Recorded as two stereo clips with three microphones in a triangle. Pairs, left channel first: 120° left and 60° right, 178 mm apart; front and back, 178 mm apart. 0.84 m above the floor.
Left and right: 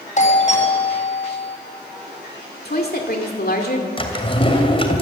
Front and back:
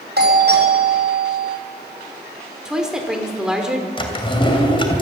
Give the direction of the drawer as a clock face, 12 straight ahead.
10 o'clock.